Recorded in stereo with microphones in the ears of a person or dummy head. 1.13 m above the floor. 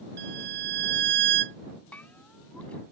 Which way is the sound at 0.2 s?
55° right (ahead or behind).